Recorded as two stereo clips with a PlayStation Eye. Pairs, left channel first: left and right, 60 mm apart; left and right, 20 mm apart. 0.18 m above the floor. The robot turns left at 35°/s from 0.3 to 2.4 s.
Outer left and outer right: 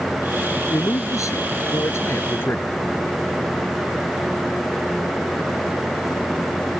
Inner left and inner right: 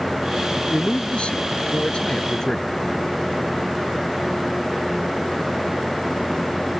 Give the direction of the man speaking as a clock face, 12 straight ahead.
8 o'clock.